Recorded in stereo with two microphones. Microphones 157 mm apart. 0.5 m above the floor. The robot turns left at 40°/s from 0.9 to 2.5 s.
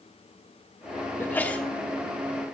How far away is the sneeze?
About 0.8 m.